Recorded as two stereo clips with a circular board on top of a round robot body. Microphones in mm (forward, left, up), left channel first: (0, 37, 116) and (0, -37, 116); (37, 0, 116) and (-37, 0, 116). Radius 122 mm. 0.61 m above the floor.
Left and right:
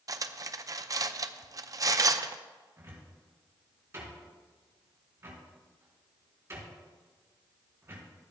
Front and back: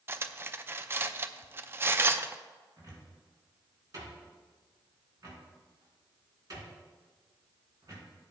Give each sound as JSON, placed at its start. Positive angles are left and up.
{"t": 0.1, "sound": "cutlery clinking", "azimuth_deg": -125, "distance_m": 0.5}
{"t": 2.8, "sound": "a cupboard door", "azimuth_deg": -145, "distance_m": 4.0}